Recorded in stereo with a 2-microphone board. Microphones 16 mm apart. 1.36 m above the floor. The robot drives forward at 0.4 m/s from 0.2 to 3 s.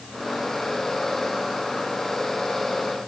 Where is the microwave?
No microwave in this recording.